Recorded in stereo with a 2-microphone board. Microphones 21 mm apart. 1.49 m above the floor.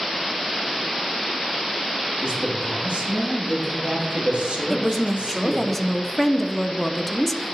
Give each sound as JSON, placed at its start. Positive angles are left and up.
{"t": 2.2, "sound": "a man speaking", "side_deg": -75, "distance_m": 1.9}
{"t": 4.7, "sound": "a woman speaking", "side_deg": 15, "distance_m": 0.5}